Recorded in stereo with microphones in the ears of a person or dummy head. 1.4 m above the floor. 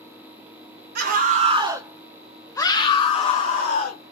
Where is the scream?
50° right (ahead or behind), 0.8 m; by 4.1 s 50° left (ahead or behind), 1.5 m.